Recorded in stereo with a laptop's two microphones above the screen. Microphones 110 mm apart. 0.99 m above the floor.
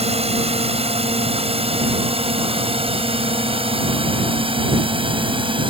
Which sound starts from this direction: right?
A drone, at 0.0 s.